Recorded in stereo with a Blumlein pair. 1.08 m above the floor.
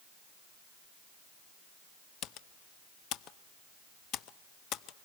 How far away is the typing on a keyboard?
About 0.7 m.